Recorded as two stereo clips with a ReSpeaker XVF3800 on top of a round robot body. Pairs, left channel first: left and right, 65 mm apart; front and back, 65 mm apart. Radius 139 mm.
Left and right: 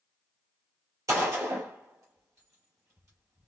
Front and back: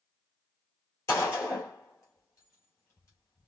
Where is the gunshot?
45° right, 2.5 m.